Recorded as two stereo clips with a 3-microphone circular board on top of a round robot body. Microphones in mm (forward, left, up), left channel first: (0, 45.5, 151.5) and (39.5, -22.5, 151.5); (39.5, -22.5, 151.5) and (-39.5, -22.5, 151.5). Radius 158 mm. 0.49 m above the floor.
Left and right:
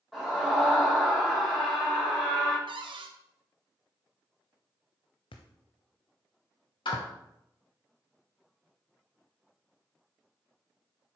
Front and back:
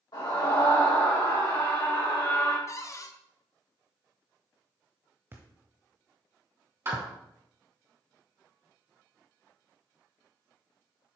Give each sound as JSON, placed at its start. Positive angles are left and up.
{"t": 0.1, "sound": "a scream", "azimuth_deg": 35, "distance_m": 3.0}
{"t": 2.7, "sound": "a cupboard door", "azimuth_deg": -50, "distance_m": 0.8}
{"t": 5.3, "sound": "a thud", "azimuth_deg": 115, "distance_m": 0.6}
{"t": 6.8, "sound": "a clap", "azimuth_deg": 120, "distance_m": 4.0}